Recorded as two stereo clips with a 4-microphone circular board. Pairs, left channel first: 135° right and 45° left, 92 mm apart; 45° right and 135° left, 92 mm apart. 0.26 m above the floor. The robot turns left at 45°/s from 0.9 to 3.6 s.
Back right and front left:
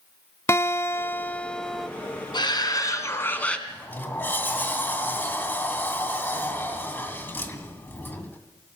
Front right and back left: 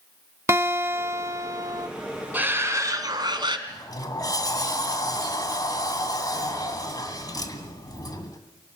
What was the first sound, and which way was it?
A guitar, straight behind.